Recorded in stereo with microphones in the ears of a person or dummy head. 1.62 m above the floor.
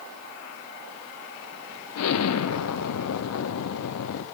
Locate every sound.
1.9 s an explosion: 85° left, 0.8 m